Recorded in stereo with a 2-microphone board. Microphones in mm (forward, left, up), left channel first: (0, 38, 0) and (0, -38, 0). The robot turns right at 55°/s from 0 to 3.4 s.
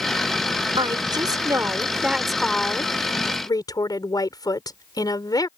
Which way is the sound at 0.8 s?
85° right.